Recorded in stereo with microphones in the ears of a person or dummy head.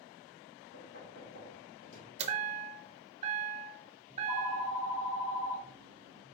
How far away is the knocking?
About 2 m.